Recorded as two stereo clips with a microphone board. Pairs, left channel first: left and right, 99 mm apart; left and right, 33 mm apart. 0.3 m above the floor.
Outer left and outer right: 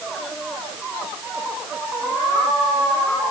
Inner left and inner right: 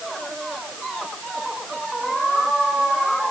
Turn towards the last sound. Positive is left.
No sound to turn to.